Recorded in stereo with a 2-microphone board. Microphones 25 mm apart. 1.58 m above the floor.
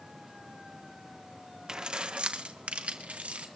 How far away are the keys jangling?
About 0.8 m.